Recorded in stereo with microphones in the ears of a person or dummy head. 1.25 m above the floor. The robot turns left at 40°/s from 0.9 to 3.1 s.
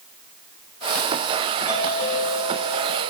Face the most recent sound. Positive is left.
turn(degrees=70)